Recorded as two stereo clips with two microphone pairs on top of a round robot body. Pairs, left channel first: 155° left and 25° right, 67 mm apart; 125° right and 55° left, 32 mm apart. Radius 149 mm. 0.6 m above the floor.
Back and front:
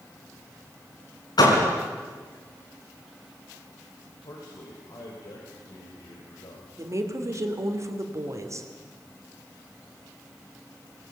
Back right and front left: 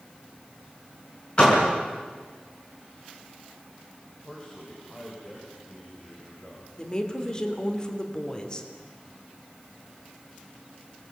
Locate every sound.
1.4 s a door slam: 175° left, 5 m
4.2 s a man speaking: 175° left, 4.5 m
6.8 s a woman speaking: 55° right, 3 m